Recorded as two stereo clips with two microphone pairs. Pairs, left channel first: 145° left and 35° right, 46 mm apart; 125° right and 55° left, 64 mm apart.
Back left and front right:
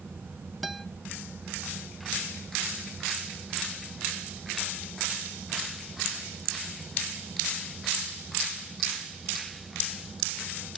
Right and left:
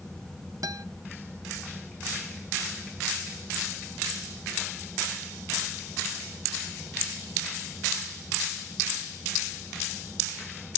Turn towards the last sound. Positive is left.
turn(degrees=55)